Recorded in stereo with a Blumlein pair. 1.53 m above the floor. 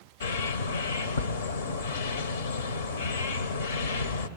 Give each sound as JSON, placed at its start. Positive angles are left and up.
{"t": 0.2, "sound": "a bird", "azimuth_deg": 65, "distance_m": 0.9}